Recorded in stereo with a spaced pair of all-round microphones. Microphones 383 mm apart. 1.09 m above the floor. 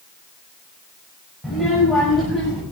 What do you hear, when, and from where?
1.4 s a child speaking: centre (ahead or behind), 3 m